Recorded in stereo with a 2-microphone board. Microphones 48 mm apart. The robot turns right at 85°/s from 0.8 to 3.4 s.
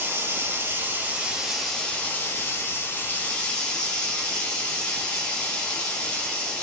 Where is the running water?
65° right, 0.9 m; by 6.6 s 160° left, 0.9 m.